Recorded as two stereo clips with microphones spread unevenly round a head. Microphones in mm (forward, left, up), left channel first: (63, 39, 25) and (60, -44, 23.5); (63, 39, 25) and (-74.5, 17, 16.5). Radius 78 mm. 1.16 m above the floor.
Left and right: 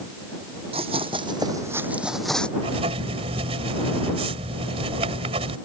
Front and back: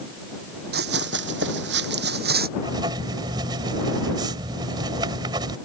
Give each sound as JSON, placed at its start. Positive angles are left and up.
{"t": 0.7, "sound": "running footsteps", "azimuth_deg": -140}
{"t": 2.6, "sound": "writing", "azimuth_deg": -105}